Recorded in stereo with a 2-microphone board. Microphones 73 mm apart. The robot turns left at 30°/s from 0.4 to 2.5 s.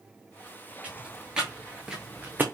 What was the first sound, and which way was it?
Footsteps, 20° right (ahead or behind).